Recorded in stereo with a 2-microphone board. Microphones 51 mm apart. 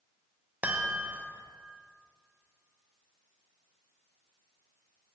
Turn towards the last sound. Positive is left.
turn(degrees=-35)  # may be behind; listen again after turning